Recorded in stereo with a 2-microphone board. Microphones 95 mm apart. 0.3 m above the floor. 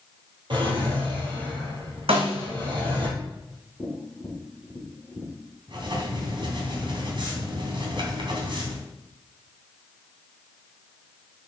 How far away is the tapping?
About 4.5 m.